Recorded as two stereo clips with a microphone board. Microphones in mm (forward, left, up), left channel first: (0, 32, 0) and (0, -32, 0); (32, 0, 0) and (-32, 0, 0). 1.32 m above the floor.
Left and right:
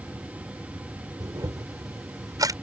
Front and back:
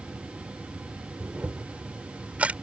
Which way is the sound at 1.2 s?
110° right.